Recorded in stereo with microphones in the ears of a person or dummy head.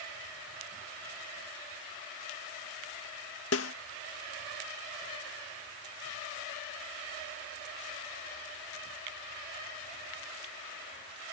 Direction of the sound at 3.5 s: 75° left (ahead or behind).